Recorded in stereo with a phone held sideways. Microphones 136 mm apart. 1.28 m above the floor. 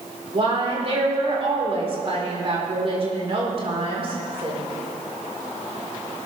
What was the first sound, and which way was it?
A woman speaking, 45° right (ahead or behind).